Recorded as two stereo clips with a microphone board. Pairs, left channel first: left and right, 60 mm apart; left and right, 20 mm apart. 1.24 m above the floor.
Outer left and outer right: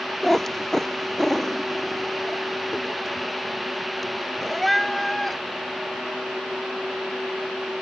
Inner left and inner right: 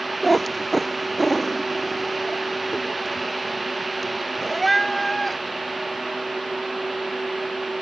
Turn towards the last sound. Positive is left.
turn(degrees=5)  # may be behind; listen again after turning